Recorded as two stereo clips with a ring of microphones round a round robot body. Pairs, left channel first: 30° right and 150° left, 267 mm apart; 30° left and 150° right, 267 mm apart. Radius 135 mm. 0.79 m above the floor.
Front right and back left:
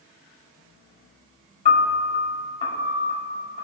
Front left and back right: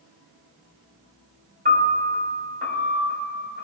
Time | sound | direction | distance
1.6 | a piano | 95° right | 2.5 m